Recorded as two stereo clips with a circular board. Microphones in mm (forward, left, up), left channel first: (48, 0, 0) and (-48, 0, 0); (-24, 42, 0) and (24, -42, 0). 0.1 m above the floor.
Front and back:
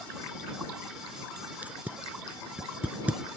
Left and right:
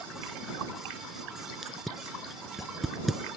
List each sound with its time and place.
1.6 s tape being pulled: 145° right